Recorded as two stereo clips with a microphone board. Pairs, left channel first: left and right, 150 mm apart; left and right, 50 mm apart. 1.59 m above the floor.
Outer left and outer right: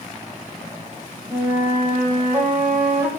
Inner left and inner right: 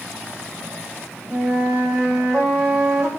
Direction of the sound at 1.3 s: 10° right (ahead or behind).